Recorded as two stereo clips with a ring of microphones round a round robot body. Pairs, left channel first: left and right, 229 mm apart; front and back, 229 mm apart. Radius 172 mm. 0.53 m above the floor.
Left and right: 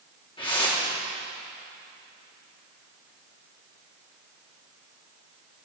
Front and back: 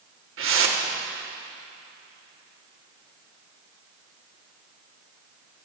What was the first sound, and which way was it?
A whoosh, 160° left.